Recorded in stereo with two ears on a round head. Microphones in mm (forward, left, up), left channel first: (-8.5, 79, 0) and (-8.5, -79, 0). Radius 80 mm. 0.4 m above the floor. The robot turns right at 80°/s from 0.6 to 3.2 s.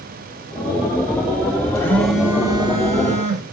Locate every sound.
1.8 s a phone buzzing: 155° left, 0.8 m; by 3.4 s 90° right, 0.8 m